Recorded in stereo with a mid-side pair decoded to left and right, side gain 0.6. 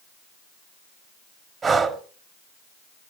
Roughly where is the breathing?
Ahead right.